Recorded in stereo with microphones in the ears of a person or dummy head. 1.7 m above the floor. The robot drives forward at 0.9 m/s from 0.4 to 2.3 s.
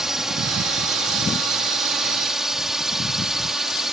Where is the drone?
Centre (ahead or behind).